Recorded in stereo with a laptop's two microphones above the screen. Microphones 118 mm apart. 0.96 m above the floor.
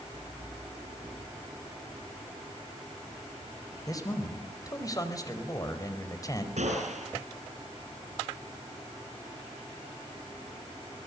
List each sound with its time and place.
3.9 s a man speaking: 30° left (ahead or behind), 4.5 m
6.6 s a gunshot: 80° right, 7.5 m